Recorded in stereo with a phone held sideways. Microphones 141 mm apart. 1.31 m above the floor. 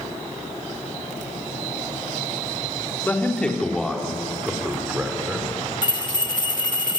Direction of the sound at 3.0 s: 15° left (ahead or behind).